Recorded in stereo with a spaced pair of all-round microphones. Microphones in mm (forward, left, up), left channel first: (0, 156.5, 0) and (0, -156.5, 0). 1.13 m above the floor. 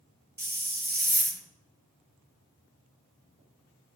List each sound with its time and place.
0.4 s a hiss: 30° right (ahead or behind), 0.9 m